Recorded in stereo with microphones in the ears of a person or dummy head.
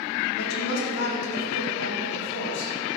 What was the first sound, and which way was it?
A woman speaking, 80° left.